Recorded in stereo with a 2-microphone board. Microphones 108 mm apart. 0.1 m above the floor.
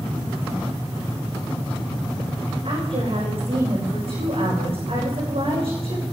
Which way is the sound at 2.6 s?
60° right (ahead or behind).